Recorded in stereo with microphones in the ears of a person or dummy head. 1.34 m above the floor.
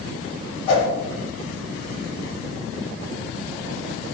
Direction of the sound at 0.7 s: 35° left (ahead or behind).